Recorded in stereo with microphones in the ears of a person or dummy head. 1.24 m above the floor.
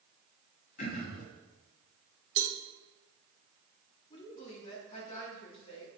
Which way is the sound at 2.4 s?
40° right (ahead or behind).